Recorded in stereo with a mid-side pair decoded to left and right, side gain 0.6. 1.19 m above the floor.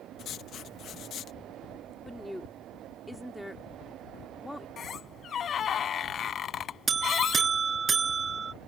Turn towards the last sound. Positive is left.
turn(degrees=-25)